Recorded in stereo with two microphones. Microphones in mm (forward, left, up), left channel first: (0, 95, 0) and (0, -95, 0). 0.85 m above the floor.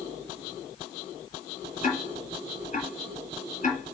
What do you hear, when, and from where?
1.8 s ticking: 40° left (ahead or behind), 3 m